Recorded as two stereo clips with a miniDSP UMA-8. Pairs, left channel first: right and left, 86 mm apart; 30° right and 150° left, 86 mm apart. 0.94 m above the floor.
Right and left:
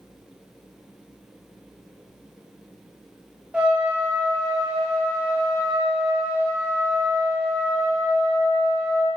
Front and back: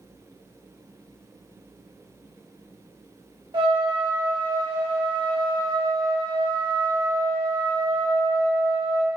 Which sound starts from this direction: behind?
A trumpet, at 3.5 s.